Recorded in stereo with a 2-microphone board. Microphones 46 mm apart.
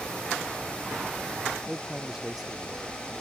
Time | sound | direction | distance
1.7 | a man speaking | 10° right (ahead or behind) | ?